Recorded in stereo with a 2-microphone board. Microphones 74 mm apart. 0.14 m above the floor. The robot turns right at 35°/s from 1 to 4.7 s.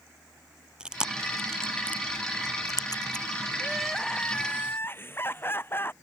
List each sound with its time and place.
0.8 s chewing: 10° right (ahead or behind); by 3.2 s 70° left (ahead or behind)
3.6 s crying: 5° right; by 5.9 s 30° left